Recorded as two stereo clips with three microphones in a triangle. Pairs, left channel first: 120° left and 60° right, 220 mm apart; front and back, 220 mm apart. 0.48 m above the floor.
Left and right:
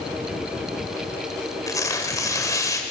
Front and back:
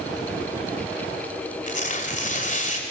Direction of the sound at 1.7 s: 45° left.